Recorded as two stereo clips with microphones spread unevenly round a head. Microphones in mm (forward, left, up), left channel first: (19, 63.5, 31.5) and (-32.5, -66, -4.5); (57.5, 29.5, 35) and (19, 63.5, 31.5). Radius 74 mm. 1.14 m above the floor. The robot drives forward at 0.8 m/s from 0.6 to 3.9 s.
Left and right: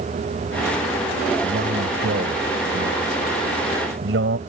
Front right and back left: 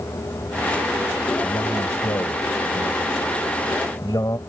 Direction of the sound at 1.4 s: 85° right.